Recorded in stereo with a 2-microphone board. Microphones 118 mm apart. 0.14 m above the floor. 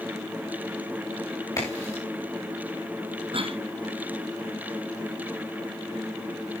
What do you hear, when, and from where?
1.6 s a crack: 25° left (ahead or behind), 6 m
3.3 s a cough: 50° right (ahead or behind), 2.0 m